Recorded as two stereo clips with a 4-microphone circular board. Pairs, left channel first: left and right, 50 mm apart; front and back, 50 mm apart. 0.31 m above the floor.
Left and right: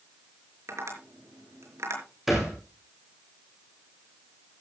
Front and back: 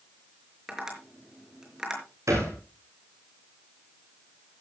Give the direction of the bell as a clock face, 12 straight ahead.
I don't hear a bell.